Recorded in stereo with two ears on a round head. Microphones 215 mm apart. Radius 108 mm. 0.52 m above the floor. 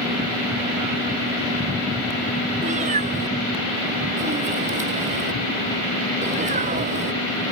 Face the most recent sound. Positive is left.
turn(degrees=-30)  # may be behind; listen again after turning